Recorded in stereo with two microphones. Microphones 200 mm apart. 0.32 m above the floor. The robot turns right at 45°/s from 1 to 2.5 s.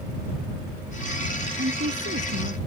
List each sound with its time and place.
1.6 s a woman speaking: 120° right; by 2.6 s 75° right